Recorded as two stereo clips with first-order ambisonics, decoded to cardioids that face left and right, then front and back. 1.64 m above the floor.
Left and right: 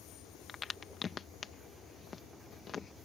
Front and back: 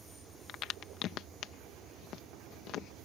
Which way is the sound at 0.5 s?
30° left.